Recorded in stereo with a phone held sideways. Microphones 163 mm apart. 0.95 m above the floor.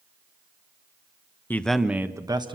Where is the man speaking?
10° left (ahead or behind), 0.9 m; by 2.5 s 30° right (ahead or behind), 1.3 m.